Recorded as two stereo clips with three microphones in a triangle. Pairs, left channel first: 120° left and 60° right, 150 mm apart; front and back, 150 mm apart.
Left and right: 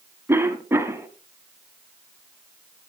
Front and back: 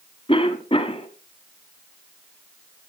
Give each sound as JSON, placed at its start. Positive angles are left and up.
{"t": 0.3, "sound": "a cough", "azimuth_deg": 5, "distance_m": 1.3}